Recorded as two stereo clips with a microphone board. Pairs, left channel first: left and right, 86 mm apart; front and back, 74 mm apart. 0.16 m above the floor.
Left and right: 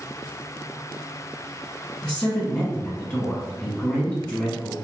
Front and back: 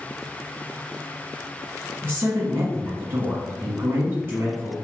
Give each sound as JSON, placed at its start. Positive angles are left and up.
{"t": 2.0, "sound": "a woman speaking", "azimuth_deg": 160, "distance_m": 1.2}